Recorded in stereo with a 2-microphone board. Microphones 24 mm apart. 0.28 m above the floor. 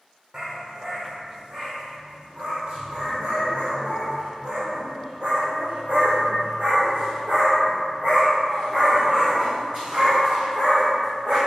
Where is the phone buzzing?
No phone buzzing in this recording.